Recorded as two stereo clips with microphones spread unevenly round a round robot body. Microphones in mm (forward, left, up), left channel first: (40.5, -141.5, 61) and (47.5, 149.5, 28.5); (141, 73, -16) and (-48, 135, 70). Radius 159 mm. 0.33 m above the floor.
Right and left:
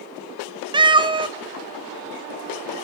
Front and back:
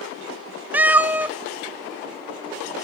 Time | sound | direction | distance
0.7 | a cat meowing | 40° left | 0.5 m